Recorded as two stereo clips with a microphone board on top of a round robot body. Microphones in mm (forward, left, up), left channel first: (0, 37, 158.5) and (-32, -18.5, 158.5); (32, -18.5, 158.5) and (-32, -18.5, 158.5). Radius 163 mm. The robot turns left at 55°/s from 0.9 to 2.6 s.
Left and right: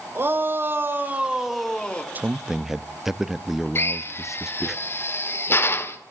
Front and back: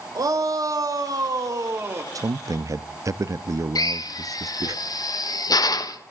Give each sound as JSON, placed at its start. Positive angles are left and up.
{"t": 0.1, "sound": "a shout", "azimuth_deg": -170, "distance_m": 3.5}
{"t": 2.1, "sound": "a man speaking", "azimuth_deg": 180, "distance_m": 0.9}
{"t": 3.8, "sound": "a drill", "azimuth_deg": 10, "distance_m": 1.9}